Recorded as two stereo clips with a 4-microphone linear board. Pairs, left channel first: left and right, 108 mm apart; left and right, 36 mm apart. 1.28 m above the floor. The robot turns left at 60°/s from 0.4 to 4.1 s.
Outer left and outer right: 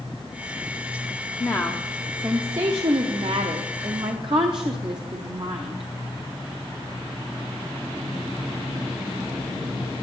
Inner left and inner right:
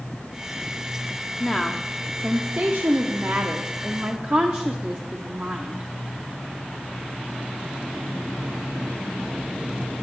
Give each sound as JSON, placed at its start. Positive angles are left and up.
{"t": 1.4, "sound": "a woman speaking", "azimuth_deg": 35, "distance_m": 0.6}